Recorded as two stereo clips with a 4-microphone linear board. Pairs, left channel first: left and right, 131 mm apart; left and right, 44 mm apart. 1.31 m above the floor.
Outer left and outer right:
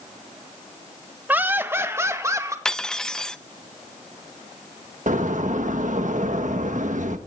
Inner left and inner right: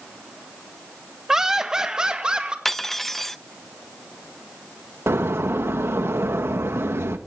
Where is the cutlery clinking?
5° left (ahead or behind), 0.5 m.